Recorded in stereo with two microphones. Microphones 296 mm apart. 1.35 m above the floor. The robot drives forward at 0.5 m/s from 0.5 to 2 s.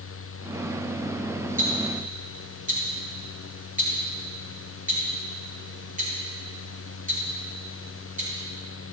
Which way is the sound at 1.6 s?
30° right (ahead or behind).